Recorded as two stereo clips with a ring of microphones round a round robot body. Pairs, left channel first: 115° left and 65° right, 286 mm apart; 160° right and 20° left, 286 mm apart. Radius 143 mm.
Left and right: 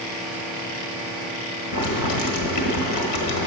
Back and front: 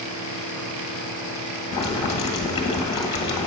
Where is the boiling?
130° left, 1.2 m.